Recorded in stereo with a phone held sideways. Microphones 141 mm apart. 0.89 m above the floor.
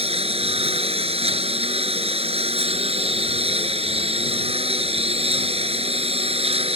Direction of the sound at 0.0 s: 50° right (ahead or behind).